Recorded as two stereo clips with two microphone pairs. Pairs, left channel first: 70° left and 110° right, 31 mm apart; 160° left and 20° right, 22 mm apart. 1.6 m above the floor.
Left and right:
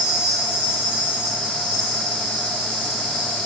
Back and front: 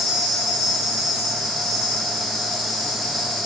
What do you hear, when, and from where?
0.0 s an insect: 65° left, 2 m